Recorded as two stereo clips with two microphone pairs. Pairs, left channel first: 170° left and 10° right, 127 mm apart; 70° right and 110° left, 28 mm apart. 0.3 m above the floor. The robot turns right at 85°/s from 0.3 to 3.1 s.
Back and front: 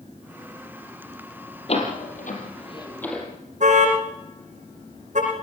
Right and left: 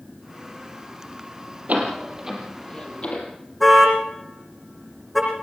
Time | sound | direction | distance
1.7 | a door slam | 135° left | 5.5 m
3.6 | a car horn | 15° left | 9.5 m